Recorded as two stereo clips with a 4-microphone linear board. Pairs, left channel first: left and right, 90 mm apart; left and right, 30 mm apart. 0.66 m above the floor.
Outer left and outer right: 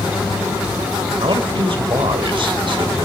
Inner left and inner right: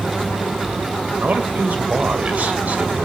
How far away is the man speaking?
About 2.5 m.